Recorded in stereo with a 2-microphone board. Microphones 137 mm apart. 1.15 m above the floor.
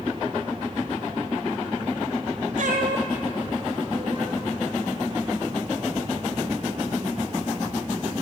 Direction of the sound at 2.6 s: 70° right (ahead or behind).